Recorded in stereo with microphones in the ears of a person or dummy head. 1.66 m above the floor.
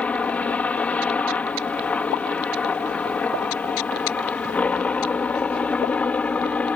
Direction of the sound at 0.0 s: 5° left (ahead or behind).